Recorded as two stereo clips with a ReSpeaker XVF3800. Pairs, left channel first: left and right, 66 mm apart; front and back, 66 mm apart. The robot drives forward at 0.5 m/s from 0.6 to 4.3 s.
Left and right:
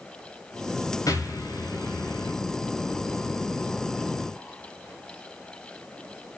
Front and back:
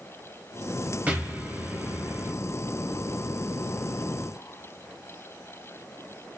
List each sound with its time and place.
1.1 s an explosion: 115° left, 3.5 m; by 2.3 s 125° left, 3.5 m